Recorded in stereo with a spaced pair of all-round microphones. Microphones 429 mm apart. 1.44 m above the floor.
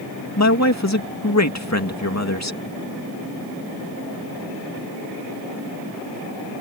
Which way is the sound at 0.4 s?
40° left (ahead or behind).